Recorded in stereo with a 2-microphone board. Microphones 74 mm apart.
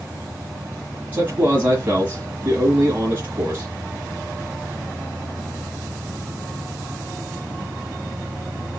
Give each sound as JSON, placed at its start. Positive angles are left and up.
{"t": 1.1, "sound": "a man speaking", "side_deg": -25, "distance_m": 1.6}